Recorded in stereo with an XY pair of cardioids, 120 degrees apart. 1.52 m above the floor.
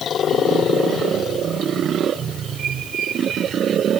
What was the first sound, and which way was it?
Only background noise.